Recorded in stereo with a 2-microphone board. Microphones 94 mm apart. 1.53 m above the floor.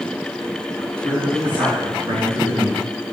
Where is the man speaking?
60° right (ahead or behind), 4 m; by 2.9 s 55° right (ahead or behind), 2.5 m.